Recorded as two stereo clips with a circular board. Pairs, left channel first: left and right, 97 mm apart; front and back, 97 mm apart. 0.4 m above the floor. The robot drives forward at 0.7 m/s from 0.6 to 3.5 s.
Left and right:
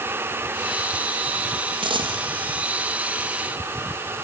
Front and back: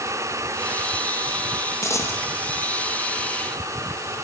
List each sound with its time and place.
1.8 s a dropped coin: 60° right, 2.5 m; by 2.2 s 70° right, 2.5 m